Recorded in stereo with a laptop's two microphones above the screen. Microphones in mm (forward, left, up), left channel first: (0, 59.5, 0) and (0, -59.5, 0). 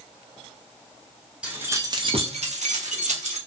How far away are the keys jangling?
About 0.6 m.